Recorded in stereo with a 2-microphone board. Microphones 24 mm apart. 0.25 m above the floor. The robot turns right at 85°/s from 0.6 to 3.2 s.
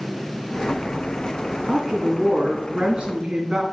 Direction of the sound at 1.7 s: 155° right.